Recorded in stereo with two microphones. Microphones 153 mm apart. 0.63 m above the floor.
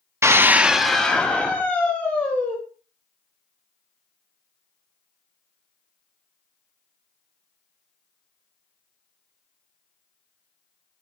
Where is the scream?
20° right (ahead or behind), 0.7 m; by 2.6 s 15° left (ahead or behind), 2.5 m.